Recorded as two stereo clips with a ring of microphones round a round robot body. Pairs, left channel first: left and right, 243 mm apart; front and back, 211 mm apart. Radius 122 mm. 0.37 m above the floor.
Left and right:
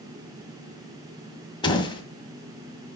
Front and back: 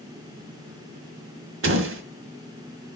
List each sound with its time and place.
1.6 s a door slam: 160° left, 1.7 m